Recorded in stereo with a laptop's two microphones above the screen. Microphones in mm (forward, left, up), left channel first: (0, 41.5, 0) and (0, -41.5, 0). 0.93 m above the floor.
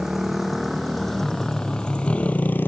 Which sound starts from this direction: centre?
A motorcycle, at 0.0 s.